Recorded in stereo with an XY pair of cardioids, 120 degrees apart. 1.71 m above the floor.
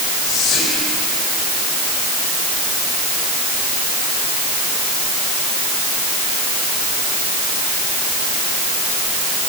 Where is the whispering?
45° left, 9.5 m.